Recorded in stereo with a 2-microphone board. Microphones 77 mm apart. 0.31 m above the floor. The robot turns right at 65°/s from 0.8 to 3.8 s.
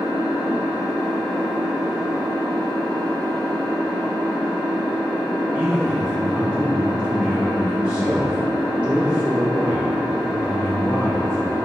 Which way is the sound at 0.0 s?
135° left.